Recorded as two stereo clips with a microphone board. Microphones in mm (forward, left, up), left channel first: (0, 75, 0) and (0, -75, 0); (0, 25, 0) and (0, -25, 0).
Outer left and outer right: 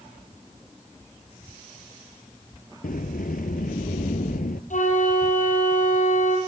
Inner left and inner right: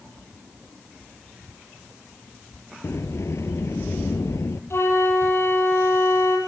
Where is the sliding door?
70° left (ahead or behind), 1.3 m.